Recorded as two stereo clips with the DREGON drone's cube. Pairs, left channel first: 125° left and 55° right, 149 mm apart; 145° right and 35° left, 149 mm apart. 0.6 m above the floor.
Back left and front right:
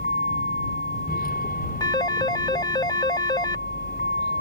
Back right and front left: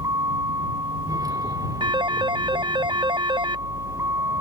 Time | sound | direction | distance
0.0 | a vehicle | 100° left | ?
1.8 | a phone ringing | 75° left | ?